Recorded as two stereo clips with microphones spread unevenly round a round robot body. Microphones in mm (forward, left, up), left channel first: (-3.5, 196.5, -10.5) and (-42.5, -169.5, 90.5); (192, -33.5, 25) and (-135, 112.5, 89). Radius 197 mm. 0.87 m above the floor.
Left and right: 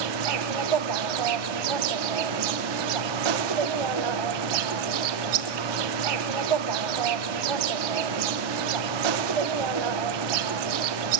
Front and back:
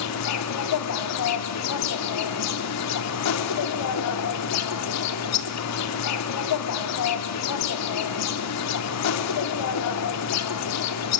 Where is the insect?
75° right, 0.8 m.